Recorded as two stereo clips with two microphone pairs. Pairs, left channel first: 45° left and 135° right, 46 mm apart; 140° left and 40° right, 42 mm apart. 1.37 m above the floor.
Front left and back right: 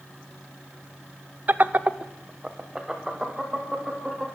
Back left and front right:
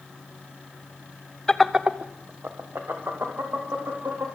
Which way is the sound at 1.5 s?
155° right.